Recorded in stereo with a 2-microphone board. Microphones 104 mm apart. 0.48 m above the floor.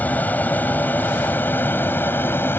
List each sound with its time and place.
0.0 s an aircraft: 15° left (ahead or behind); by 2.6 s 20° left (ahead or behind)